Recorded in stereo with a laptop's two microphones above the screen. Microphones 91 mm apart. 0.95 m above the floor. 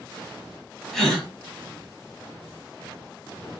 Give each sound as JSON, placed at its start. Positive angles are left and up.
{"t": 0.9, "sound": "a gasp", "side_deg": 0, "distance_m": 2.0}